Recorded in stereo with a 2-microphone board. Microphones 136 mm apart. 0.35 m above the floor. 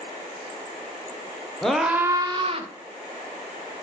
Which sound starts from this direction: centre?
A scream, at 1.6 s.